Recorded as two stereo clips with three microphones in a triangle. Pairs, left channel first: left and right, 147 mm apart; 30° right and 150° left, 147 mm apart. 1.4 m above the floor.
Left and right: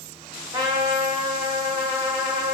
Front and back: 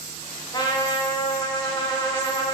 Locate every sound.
0.5 s a trumpet: 60° right, 1.2 m